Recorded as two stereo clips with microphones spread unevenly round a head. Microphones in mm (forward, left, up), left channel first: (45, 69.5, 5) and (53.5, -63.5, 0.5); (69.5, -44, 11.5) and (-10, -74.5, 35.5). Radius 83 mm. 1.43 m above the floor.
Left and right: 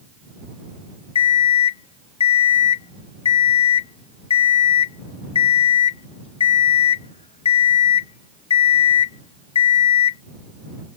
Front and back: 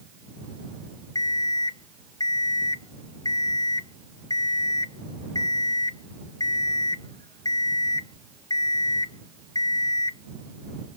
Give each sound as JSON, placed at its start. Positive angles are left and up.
{"t": 1.1, "sound": "an alarm clock", "azimuth_deg": 95}